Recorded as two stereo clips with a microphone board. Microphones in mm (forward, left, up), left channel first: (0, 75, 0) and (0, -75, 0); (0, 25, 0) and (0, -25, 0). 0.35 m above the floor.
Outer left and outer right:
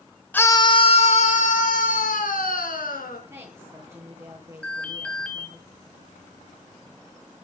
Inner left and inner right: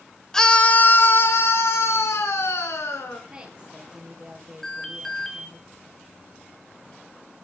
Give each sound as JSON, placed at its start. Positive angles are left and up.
{"t": 0.3, "sound": "a scream", "side_deg": 10, "distance_m": 1.2}
{"t": 3.3, "sound": "a woman speaking", "side_deg": -15, "distance_m": 7.5}
{"t": 4.6, "sound": "an alarm", "side_deg": 10, "distance_m": 3.0}